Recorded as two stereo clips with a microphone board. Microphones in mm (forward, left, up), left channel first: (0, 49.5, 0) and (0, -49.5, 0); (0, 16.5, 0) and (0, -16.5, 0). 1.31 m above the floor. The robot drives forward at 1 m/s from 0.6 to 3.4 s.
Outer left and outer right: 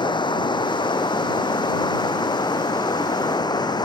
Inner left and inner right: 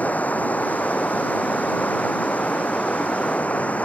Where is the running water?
50° left (ahead or behind); by 3.9 s 45° left (ahead or behind).